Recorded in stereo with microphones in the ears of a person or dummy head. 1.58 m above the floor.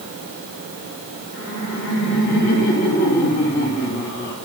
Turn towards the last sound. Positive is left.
turn(degrees=55)  # may be behind; listen again after turning